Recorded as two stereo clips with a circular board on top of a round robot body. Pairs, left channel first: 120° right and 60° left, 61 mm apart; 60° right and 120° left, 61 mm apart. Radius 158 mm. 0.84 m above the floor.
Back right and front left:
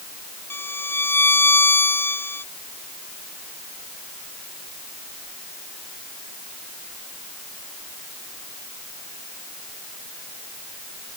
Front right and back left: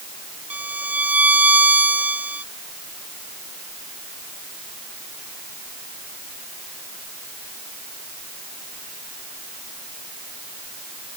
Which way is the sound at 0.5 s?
175° right.